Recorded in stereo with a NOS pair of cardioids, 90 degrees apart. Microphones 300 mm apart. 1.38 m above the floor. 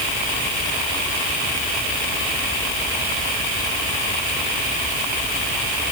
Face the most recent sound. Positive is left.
No sound to turn to.